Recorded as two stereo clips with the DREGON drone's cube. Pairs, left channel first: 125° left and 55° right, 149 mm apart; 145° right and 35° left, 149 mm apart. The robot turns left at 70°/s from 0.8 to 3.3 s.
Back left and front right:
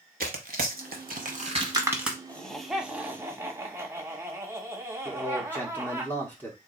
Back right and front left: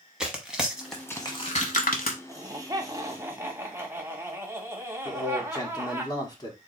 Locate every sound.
0.2 s tearing paper: 50° right, 1.0 m; by 2.2 s 145° right, 1.0 m
2.3 s laughter: 55° left, 1.0 m; by 6.0 s 15° right, 1.0 m
5.0 s a man speaking: 170° right, 1.2 m